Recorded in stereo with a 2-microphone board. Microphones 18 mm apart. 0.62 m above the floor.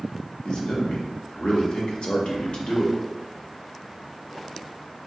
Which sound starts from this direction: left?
A man speaking, at 0.5 s.